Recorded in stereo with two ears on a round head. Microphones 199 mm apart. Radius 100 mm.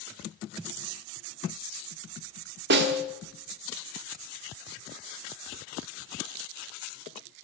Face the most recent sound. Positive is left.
turn(degrees=-50)  # may be behind; listen again after turning